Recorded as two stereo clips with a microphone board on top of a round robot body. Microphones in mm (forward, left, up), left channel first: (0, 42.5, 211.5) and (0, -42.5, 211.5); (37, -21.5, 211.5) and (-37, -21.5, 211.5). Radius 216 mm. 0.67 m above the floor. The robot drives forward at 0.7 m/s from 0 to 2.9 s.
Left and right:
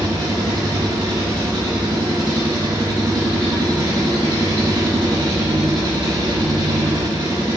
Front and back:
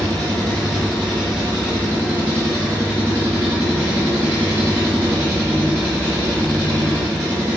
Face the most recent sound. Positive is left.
turn(degrees=-120)